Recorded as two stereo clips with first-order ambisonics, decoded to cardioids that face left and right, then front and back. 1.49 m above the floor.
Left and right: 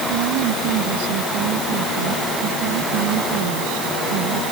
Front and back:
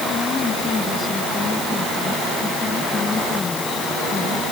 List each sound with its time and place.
0.1 s a woman speaking: 75° right